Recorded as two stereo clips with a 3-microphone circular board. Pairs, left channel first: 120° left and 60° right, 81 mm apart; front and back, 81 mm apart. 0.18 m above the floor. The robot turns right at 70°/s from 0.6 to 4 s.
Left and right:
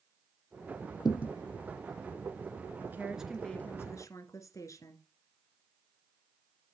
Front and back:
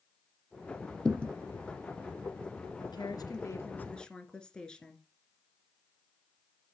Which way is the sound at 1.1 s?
80° left.